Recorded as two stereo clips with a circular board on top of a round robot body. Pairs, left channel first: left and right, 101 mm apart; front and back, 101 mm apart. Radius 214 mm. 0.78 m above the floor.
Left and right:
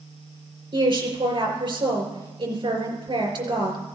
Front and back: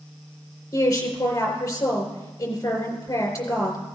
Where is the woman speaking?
60° right, 4 m.